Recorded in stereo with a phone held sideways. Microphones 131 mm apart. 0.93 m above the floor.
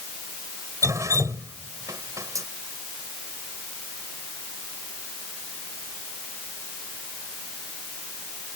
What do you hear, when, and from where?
0.8 s dripping: 25° right (ahead or behind)